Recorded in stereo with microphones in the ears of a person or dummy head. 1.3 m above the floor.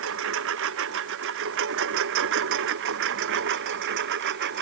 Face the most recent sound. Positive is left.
turn(degrees=-60)  # may be behind; listen again after turning